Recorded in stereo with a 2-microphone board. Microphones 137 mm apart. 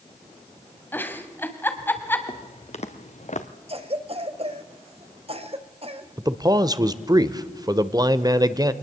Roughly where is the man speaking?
Right.